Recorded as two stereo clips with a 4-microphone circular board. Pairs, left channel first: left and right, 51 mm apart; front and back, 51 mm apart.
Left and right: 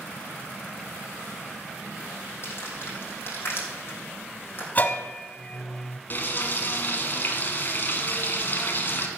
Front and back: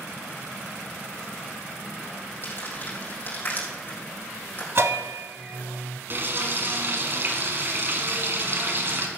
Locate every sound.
2.4 s crumpling: 50° left, 4 m
4.8 s a bell: 145° left, 0.6 m
6.1 s frying: 140° left, 1.7 m